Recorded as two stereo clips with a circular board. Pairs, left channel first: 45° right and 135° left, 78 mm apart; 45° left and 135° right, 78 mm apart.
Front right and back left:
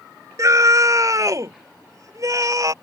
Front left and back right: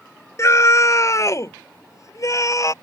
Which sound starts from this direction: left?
A scream, at 0.4 s.